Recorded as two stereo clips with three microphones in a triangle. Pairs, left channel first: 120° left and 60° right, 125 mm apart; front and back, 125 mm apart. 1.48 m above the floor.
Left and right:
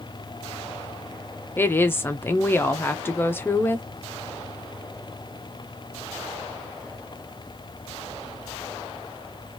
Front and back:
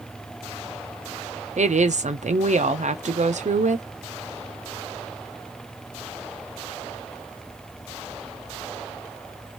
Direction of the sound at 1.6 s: 170° right.